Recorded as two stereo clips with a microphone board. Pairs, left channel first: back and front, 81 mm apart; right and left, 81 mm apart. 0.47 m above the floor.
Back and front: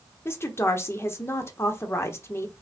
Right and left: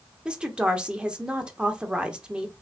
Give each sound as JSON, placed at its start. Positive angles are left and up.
{"t": 0.2, "sound": "a woman speaking", "azimuth_deg": 160, "distance_m": 0.9}